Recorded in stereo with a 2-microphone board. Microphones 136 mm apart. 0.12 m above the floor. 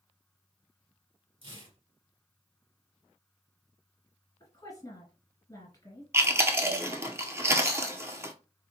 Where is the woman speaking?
30° left (ahead or behind), 2 m.